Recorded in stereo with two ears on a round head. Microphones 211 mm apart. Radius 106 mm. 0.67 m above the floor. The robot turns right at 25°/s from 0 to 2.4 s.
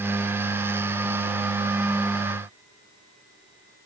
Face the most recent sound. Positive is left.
No sound to turn to.